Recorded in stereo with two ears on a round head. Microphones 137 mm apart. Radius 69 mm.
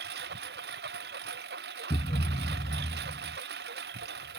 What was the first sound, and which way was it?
A lawn mower, 90° right.